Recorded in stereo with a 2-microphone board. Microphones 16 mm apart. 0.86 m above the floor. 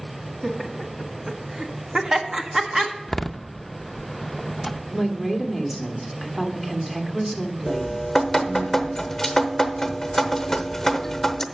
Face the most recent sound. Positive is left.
turn(degrees=10)  # may be behind; listen again after turning